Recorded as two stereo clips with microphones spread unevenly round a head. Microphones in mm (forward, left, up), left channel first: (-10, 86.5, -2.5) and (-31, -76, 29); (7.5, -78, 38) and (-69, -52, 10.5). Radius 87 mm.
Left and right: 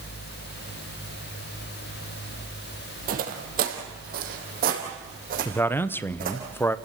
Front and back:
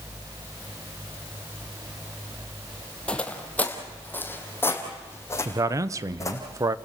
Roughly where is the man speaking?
Behind left.